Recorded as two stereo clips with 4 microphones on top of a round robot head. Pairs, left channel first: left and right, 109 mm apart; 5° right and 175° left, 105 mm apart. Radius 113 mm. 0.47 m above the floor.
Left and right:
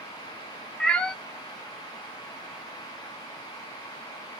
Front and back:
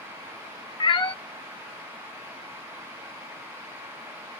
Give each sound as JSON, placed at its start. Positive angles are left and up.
{"t": 0.8, "sound": "a cat meowing", "azimuth_deg": 10, "distance_m": 0.6}